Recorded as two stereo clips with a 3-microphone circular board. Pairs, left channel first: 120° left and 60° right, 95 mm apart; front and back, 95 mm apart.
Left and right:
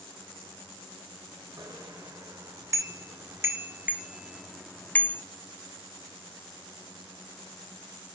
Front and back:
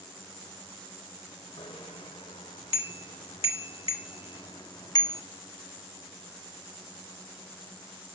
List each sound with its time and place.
1.6 s a bicycle bell: 15° right, 3 m; by 5.2 s 55° left, 1.1 m